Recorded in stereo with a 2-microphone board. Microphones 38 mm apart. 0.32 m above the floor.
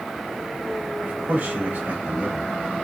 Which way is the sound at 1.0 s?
35° right (ahead or behind).